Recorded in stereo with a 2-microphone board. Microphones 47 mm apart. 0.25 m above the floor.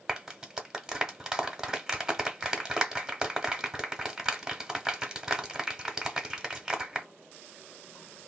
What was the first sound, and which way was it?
A clap, 15° right (ahead or behind).